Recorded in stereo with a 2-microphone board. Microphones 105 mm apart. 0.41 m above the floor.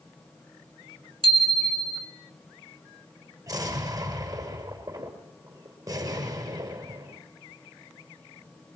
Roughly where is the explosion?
Right.